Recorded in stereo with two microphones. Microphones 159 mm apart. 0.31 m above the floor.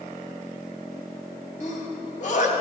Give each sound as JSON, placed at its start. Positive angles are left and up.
{"t": 1.6, "sound": "a sneeze", "side_deg": 55, "distance_m": 2.5}